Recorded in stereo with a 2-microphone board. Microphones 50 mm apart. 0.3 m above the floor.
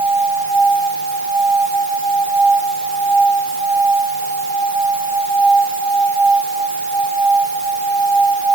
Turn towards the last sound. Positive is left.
No sound to turn to.